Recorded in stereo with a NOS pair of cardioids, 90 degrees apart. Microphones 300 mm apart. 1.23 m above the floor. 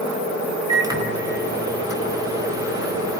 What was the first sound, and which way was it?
A microwave, 10° right.